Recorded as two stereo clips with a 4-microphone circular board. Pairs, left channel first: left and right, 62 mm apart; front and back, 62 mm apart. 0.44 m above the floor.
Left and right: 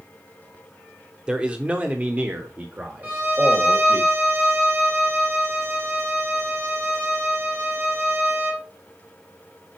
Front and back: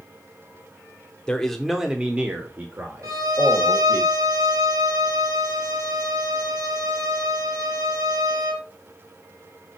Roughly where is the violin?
Behind right.